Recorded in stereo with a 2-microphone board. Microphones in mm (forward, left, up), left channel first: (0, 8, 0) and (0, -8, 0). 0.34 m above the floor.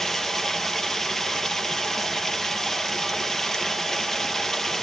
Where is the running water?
20° left (ahead or behind), 2.5 m.